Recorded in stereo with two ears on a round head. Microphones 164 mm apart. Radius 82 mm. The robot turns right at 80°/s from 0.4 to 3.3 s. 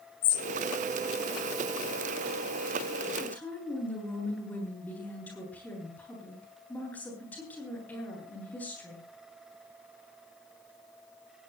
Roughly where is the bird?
Left.